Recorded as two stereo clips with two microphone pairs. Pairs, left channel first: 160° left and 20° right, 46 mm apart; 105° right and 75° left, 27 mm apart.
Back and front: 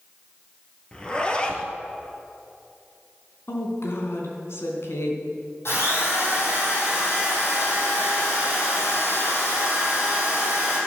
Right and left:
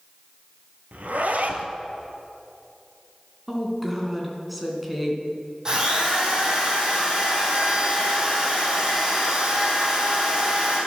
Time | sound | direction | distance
0.9 | a zipper | 90° left | 1.6 m
3.5 | a woman speaking | 165° left | 3 m
5.7 | a drill | 135° left | 5 m